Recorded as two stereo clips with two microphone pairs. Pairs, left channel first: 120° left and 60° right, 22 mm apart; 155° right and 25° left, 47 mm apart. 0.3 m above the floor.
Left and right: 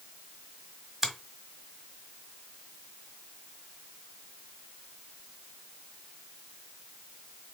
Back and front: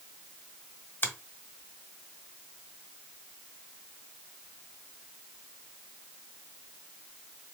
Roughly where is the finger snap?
Behind right.